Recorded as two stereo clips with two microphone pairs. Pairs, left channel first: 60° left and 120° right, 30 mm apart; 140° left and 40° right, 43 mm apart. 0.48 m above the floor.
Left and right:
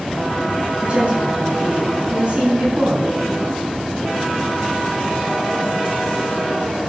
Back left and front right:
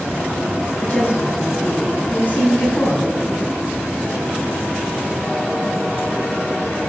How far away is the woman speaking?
About 5 m.